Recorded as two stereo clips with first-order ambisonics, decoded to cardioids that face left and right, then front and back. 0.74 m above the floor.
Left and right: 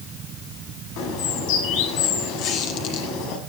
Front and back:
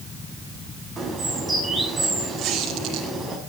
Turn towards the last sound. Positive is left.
turn(degrees=125)